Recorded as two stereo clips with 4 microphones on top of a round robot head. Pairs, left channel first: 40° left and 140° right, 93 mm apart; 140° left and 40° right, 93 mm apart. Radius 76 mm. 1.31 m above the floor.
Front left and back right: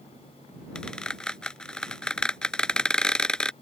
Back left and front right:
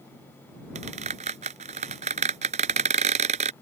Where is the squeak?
40° right.